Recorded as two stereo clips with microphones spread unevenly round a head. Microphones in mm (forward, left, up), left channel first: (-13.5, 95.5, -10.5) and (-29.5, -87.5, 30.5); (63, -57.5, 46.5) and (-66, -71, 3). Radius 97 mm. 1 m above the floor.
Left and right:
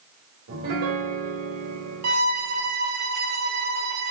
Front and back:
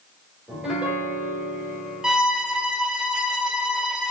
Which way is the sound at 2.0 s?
95° right.